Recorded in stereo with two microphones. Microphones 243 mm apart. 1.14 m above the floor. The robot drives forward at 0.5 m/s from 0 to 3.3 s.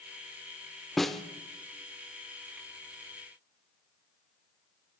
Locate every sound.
1.0 s a snare drum: centre (ahead or behind), 0.9 m